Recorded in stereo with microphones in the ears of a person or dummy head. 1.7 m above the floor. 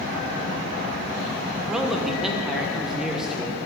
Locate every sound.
1.7 s a man speaking: 10° right (ahead or behind), 1.1 m